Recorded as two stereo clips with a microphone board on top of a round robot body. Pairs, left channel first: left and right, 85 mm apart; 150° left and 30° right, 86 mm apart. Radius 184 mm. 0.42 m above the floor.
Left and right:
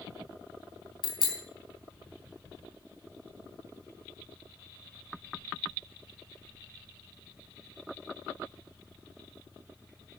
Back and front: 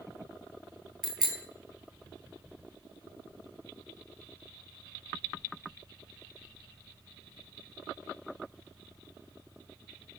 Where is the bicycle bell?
55° left, 3.5 m.